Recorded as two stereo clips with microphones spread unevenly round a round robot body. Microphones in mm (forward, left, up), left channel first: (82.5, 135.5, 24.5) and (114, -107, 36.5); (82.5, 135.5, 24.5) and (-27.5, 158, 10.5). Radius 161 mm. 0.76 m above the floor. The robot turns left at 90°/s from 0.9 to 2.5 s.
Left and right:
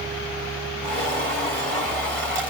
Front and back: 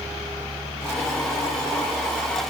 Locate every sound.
Only background noise.